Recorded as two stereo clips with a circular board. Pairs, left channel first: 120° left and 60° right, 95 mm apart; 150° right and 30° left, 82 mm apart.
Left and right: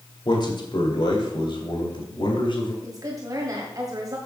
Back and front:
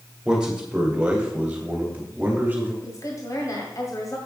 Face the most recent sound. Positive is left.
turn(degrees=-105)